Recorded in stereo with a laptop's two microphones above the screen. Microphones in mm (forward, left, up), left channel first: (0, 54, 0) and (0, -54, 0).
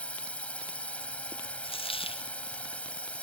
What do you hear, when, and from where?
0.0 s a drone: 10° left (ahead or behind)
1.6 s a dropped coin: 55° left (ahead or behind)